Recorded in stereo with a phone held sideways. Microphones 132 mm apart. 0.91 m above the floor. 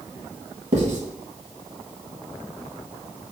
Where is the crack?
I don't hear a crack.